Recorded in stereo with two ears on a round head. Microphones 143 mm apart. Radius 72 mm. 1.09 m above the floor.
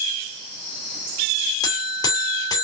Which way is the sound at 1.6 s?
25° left (ahead or behind).